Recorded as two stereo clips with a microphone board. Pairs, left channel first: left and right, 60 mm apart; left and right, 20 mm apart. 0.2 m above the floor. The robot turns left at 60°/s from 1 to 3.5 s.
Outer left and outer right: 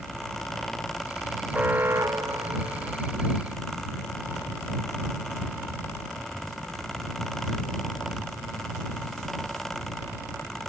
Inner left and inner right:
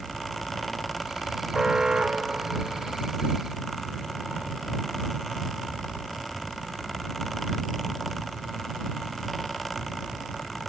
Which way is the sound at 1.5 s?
25° right.